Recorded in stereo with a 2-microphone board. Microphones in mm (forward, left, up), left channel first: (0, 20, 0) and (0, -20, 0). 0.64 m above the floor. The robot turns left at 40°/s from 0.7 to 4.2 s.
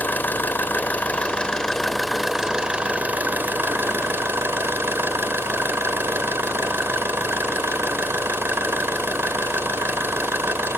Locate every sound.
0.0 s an engine running: 55° left, 1.4 m; by 10.8 s 85° right, 1.4 m